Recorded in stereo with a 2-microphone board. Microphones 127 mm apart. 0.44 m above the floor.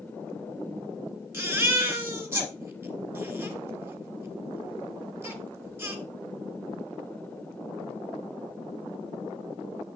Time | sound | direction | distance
1.3 | a baby crying | 20° right (ahead or behind) | 2 m